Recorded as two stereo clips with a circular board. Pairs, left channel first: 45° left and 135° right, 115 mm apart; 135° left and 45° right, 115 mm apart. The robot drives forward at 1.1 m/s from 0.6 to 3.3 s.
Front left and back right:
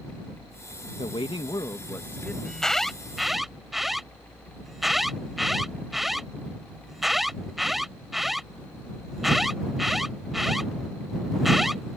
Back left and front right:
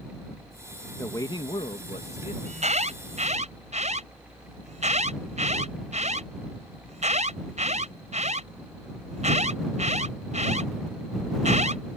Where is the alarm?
40° right; by 12.0 s 45° right.